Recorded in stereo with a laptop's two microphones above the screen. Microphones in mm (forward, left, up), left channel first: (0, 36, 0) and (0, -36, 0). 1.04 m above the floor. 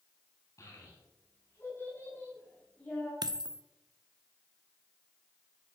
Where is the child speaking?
45° left (ahead or behind), 6.5 m; by 3.1 s 10° left (ahead or behind), 5 m.